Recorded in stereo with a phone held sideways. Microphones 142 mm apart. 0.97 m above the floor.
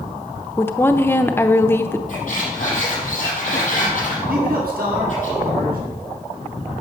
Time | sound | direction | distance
0.6 | a woman speaking | 15° left (ahead or behind) | 0.8 m
2.1 | a squeak | 55° left (ahead or behind) | 6.5 m
4.3 | a man speaking | 80° right | 7 m